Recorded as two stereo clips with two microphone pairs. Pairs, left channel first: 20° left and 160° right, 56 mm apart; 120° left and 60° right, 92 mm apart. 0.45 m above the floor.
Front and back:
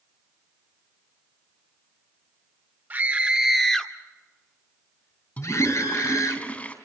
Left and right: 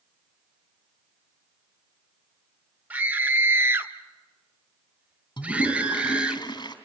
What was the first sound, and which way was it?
A scream, 125° right.